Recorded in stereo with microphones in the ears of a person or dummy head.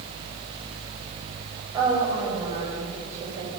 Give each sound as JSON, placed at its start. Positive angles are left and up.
{"t": 1.7, "sound": "a woman speaking", "side_deg": -20, "distance_m": 5.0}